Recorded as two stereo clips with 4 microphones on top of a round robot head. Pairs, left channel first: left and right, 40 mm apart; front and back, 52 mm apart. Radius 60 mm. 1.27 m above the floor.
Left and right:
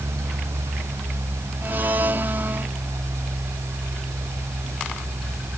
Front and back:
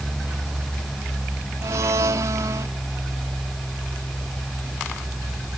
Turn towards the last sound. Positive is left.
turn(degrees=-140)